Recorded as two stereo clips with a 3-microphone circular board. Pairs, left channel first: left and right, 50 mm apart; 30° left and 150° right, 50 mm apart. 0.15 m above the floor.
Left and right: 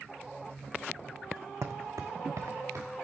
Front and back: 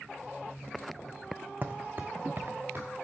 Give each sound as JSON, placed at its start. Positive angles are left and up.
{"t": 1.6, "sound": "footsteps", "azimuth_deg": -100, "distance_m": 0.6}